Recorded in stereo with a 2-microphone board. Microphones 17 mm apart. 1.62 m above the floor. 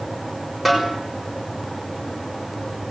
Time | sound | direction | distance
0.7 | a snare drum | 10° right (ahead or behind) | 6 m